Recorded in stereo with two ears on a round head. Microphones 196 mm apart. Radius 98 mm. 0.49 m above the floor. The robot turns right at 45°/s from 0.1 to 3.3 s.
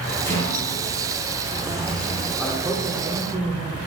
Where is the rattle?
10° left, 2.5 m; by 2.3 s 100° left, 2.5 m.